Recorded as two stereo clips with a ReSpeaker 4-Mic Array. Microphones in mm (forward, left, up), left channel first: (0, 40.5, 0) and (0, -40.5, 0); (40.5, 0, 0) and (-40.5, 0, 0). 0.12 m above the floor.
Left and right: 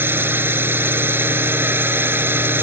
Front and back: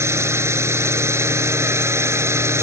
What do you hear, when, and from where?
0.0 s a drone: 140° right